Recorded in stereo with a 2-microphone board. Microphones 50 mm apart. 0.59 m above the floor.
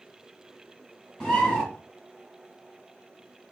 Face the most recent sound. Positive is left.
turn(degrees=20)  # may be behind; listen again after turning